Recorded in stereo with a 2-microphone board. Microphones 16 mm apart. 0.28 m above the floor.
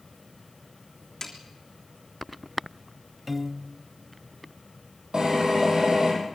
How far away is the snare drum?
About 3 m.